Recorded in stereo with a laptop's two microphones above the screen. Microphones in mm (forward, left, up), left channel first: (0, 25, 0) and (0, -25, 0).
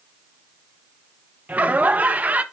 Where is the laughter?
30° right (ahead or behind), 1.1 m.